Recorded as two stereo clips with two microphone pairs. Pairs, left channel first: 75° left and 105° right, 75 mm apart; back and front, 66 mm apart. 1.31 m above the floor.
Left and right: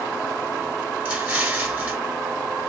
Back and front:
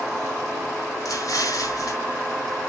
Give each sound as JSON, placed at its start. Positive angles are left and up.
{"t": 1.1, "sound": "an explosion", "azimuth_deg": -170, "distance_m": 1.5}